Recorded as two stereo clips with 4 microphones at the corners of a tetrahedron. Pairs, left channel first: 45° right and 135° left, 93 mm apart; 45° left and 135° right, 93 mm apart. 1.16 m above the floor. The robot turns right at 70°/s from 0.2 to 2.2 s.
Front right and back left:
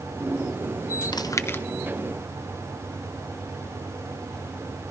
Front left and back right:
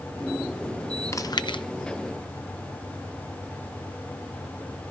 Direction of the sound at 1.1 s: 10° right.